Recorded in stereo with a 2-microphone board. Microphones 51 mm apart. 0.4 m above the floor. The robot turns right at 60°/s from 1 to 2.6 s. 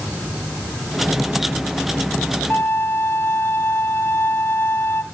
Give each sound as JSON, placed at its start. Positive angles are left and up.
{"t": 2.5, "sound": "a violin", "side_deg": 45, "distance_m": 2.0}